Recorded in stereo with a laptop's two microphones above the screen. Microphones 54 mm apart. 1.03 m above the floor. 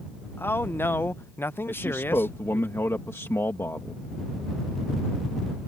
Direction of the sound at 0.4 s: 45° left (ahead or behind).